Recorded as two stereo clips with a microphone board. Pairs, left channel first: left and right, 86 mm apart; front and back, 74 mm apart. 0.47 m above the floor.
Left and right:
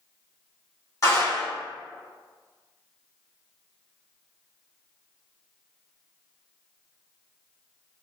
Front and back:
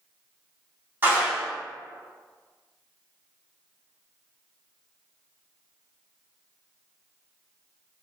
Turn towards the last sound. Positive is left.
turn(degrees=130)